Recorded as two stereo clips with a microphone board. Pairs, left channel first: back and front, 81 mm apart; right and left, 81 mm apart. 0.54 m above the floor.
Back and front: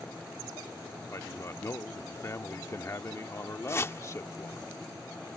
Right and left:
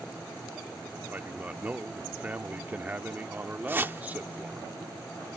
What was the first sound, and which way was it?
A man speaking, 150° left.